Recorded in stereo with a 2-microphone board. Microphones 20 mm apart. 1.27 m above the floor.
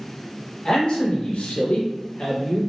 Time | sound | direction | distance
0.7 | a man speaking | 40° left (ahead or behind) | 1.7 m